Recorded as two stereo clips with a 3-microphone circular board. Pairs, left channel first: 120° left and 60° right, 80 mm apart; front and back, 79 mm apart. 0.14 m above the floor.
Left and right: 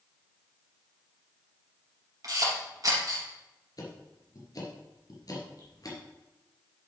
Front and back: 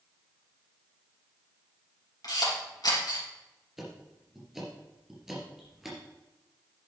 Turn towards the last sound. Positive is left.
turn(degrees=95)